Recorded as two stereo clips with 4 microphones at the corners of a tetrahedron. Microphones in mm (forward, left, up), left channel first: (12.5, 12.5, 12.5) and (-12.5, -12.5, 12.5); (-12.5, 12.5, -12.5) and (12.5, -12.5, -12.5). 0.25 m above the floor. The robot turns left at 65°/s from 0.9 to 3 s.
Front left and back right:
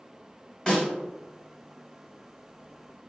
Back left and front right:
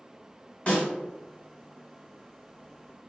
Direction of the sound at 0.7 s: 100° left.